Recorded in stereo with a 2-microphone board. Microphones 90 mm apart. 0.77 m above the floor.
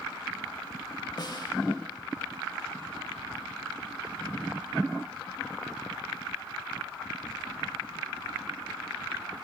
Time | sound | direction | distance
1.2 | a snare drum | 50° left (ahead or behind) | 0.7 m